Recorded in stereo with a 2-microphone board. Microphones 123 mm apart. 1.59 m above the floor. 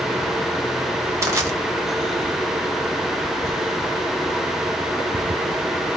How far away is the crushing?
About 1.4 m.